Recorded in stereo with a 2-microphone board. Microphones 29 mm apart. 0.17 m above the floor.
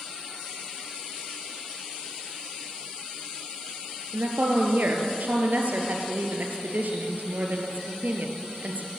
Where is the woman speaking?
65° right (ahead or behind), 3 m.